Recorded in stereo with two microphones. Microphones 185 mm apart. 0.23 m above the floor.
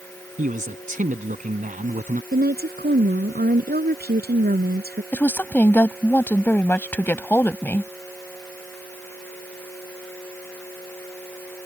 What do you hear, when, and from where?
0.4 s a man speaking: 45° right (ahead or behind)
2.3 s a woman speaking: 55° right (ahead or behind)
5.1 s a woman speaking: 10° left (ahead or behind)